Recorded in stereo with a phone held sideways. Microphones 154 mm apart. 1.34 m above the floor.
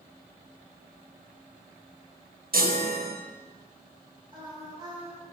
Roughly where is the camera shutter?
No camera shutter in this recording.